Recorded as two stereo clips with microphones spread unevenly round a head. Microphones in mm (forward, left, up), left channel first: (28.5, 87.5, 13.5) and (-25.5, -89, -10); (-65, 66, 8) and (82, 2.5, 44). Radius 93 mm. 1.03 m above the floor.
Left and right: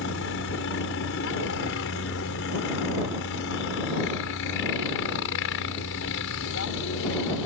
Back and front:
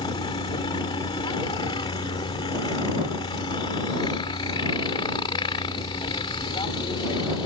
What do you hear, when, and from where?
0.0 s a helicopter: 95° left